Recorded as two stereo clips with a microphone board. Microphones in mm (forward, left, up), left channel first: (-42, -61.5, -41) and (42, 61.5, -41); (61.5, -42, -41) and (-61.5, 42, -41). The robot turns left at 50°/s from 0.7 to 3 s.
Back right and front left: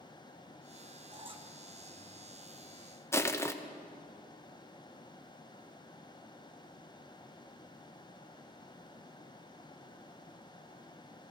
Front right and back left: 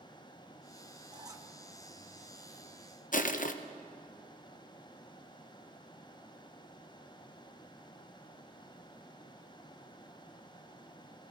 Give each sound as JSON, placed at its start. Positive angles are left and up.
{"t": 1.1, "sound": "a squeak", "azimuth_deg": 100, "distance_m": 0.8}
{"t": 3.1, "sound": "crushing", "azimuth_deg": -55, "distance_m": 0.6}